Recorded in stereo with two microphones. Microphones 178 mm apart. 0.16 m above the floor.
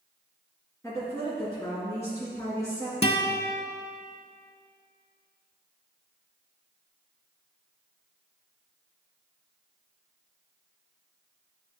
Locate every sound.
0.8 s a woman speaking: 15° left (ahead or behind), 2 m
3.0 s a guitar: 35° left (ahead or behind), 0.6 m